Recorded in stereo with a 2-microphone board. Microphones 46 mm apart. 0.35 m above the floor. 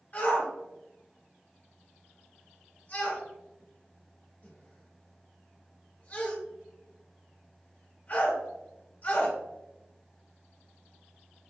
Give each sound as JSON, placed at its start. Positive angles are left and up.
{"t": 0.1, "sound": "a shout", "side_deg": 40, "distance_m": 1.9}